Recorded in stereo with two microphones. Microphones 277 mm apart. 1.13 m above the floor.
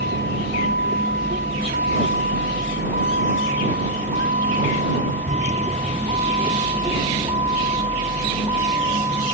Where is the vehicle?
40° right (ahead or behind); by 9.3 s 15° right (ahead or behind).